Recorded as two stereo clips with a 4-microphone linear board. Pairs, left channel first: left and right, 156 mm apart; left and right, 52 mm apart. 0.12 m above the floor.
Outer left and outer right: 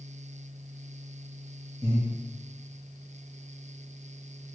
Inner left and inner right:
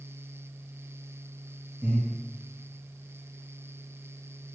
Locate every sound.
1.8 s breathing: 35° right (ahead or behind), 2.5 m